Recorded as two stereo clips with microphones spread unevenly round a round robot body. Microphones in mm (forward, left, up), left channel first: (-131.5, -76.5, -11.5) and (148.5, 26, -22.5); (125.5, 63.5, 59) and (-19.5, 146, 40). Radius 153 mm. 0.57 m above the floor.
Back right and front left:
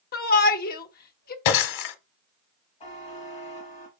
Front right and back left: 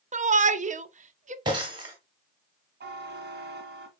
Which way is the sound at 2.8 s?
130° left.